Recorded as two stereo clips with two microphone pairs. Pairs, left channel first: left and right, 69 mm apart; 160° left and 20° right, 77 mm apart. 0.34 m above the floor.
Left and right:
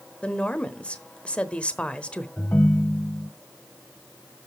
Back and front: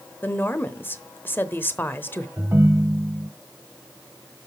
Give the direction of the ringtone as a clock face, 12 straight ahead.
11 o'clock.